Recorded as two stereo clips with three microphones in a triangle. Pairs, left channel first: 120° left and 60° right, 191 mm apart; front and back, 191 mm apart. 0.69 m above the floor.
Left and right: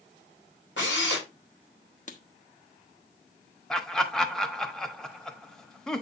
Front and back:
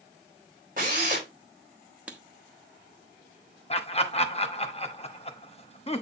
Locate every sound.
0.8 s a drill: 135° left, 4.5 m
2.1 s writing: 100° left, 1.0 m
3.7 s laughter: 35° left, 1.0 m